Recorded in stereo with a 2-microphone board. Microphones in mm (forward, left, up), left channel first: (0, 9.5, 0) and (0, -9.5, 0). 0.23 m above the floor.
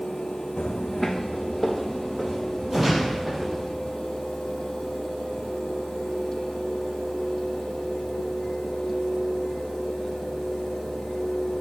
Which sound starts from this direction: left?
Footsteps, at 0.6 s.